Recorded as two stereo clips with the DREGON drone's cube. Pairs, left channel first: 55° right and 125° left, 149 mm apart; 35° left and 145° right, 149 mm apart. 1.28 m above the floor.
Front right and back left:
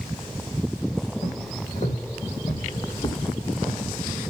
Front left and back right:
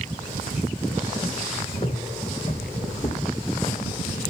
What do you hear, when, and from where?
1.2 s footsteps: 20° right, 4 m; by 3.9 s 30° left, 1.8 m